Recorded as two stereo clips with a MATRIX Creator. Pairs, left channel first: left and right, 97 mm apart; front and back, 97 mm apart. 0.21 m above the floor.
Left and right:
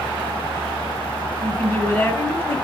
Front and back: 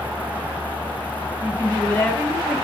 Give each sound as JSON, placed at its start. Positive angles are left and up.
{"t": 1.4, "sound": "a woman speaking", "azimuth_deg": 50, "distance_m": 1.2}